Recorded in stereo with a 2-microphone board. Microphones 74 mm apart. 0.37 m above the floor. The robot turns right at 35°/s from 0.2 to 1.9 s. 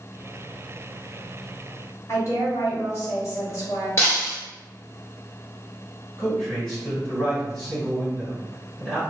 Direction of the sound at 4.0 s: 35° left (ahead or behind).